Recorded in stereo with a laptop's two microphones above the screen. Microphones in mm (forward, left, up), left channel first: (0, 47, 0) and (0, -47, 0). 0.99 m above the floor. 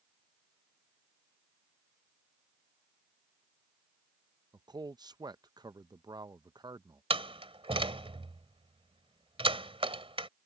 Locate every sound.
4.5 s a man speaking: 45° right (ahead or behind)
7.1 s a door slam: 80° right